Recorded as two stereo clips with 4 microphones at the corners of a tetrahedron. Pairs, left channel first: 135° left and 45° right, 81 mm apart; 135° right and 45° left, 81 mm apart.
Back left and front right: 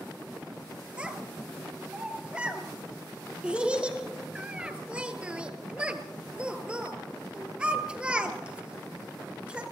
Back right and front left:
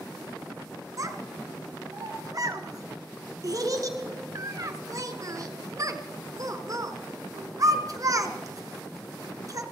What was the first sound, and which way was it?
A child speaking, 25° left.